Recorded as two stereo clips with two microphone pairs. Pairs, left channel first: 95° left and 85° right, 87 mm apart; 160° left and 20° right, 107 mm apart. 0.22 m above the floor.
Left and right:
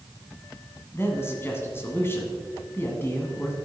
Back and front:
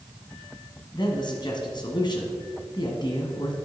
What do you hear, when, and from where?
0.9 s a man speaking: 150° left, 1.6 m